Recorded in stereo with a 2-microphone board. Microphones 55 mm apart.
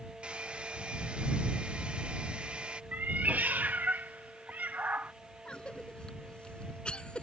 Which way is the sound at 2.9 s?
35° right (ahead or behind).